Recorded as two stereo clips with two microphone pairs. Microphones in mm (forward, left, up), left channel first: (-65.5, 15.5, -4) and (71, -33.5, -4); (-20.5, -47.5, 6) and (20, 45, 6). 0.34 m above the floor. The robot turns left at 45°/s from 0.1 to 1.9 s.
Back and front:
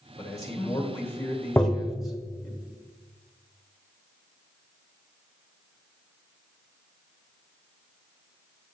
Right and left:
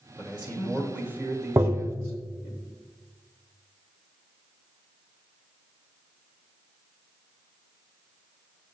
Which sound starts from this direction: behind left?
A man speaking, at 0.2 s.